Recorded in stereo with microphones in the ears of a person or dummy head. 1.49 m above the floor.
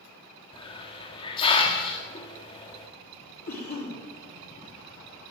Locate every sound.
0.5 s a hiss: 35° left (ahead or behind), 1.7 m
3.5 s a cough: 45° left (ahead or behind), 3.5 m